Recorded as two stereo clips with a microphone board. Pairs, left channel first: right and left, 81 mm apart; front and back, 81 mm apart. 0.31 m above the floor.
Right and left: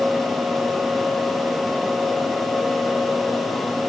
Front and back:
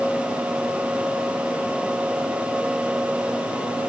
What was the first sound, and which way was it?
Only background noise.